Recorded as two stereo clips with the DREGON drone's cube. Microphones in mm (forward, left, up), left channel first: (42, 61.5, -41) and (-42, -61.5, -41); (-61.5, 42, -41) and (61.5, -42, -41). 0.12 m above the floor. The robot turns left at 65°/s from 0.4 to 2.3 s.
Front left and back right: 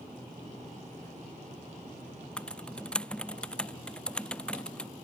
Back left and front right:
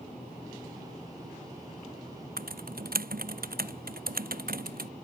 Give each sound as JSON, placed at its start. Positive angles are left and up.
{"t": 2.4, "sound": "typing on a keyboard", "azimuth_deg": -30}